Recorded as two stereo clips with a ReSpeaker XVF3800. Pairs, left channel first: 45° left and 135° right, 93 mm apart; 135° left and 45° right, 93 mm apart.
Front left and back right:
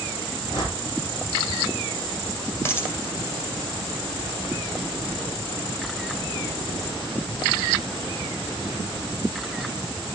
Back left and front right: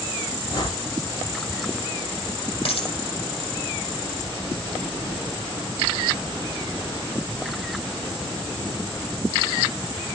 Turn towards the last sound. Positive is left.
turn(degrees=110)